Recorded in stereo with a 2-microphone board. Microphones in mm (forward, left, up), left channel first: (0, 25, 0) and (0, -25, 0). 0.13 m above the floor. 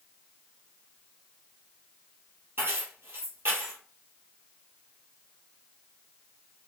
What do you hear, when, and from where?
2.6 s keys jangling: 50° right (ahead or behind), 2 m